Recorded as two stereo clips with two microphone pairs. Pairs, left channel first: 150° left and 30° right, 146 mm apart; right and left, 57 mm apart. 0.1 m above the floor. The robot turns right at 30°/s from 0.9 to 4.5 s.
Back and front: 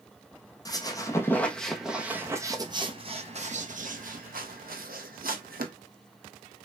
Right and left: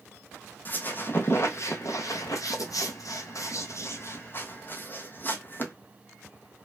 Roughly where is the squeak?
Behind right.